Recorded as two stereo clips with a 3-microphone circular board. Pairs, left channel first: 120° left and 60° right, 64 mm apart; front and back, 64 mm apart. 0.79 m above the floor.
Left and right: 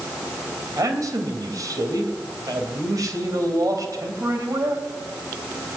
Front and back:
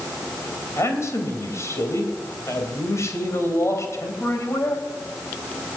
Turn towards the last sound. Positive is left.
turn(degrees=-40)